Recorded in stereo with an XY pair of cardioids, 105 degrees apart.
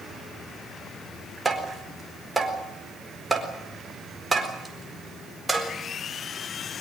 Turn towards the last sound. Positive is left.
turn(degrees=-15)